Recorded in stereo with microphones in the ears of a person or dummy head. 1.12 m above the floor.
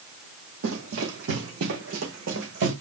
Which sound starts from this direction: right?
Running footsteps, at 0.6 s.